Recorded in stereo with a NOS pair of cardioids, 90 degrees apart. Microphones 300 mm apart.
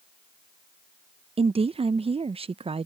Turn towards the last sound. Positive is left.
turn(degrees=-20)